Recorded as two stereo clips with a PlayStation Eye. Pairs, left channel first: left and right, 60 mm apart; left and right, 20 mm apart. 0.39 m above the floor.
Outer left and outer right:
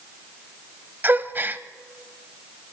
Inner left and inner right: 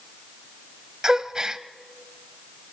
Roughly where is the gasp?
Right.